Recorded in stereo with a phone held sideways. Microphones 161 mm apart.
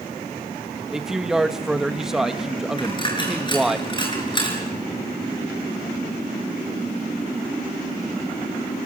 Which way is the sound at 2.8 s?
30° left (ahead or behind).